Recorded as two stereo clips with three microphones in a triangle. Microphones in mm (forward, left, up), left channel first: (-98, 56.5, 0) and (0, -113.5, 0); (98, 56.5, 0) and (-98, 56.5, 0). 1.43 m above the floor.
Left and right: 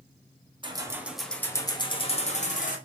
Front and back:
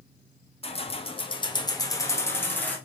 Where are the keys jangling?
20° right, 0.7 m; by 2.8 s 80° left, 1.3 m.